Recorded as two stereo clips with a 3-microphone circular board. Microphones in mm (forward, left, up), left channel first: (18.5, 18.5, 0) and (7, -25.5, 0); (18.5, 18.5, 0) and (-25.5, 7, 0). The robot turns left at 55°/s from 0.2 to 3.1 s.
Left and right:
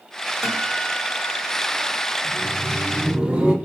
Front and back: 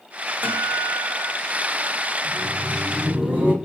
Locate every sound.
0.4 s a guitar: 170° right, 1.6 m; by 2.1 s 95° left, 1.6 m
2.2 s laughter: 100° right, 1.6 m; by 3.5 s 145° right, 1.6 m